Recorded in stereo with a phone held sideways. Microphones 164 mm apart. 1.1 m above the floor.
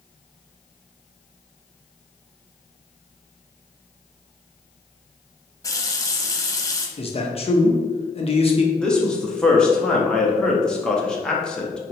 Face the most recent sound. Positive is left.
turn(degrees=5)  # may be behind; listen again after turning